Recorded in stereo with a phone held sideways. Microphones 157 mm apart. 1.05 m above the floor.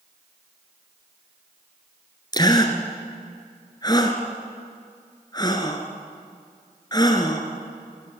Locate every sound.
2.3 s a gasp: 25° left (ahead or behind), 2.5 m